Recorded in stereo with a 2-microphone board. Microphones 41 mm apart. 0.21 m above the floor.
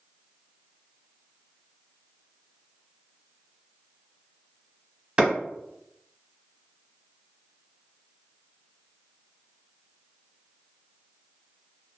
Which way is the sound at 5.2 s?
25° right (ahead or behind).